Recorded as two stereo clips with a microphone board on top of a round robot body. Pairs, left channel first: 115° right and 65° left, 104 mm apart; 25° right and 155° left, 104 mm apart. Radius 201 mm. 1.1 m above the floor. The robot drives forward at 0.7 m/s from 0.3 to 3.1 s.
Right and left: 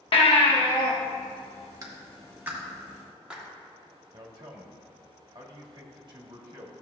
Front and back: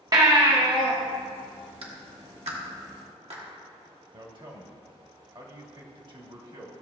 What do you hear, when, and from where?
0.1 s a baby crying: 150° right, 1.0 m; by 0.9 s 160° right, 1.4 m
1.8 s a clap: 125° left, 1.3 m; by 3.4 s 145° left, 1.9 m
4.1 s a man speaking: 115° left, 1.5 m